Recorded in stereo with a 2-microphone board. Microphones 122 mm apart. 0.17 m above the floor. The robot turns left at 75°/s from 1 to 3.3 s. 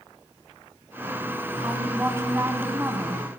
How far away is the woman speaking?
About 1.0 m.